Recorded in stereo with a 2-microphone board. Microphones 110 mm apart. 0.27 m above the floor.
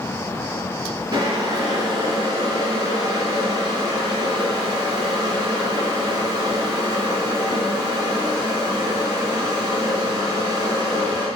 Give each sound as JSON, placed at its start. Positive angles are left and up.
{"t": 1.1, "sound": "boiling", "side_deg": -35, "distance_m": 3.0}